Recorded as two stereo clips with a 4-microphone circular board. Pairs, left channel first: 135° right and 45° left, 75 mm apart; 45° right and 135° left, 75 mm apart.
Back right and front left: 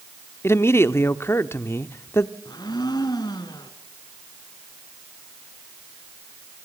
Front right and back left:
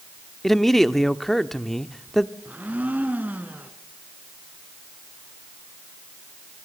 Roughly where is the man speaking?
Behind right.